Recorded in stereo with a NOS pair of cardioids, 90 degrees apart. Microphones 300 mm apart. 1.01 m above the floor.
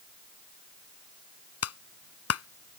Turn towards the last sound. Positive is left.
turn(degrees=55)